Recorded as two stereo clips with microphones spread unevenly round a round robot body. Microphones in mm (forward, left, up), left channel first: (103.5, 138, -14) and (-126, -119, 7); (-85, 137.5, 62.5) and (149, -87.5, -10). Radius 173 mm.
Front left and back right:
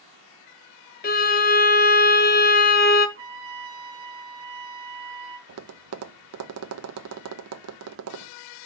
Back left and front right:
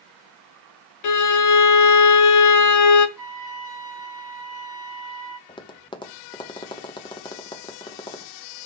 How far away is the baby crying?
I don't hear a baby crying.